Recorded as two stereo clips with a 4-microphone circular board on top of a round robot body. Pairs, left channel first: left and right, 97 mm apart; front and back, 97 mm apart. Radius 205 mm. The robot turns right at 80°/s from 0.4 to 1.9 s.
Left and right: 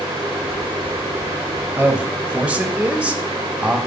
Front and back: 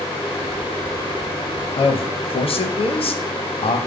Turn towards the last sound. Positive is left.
turn(degrees=-10)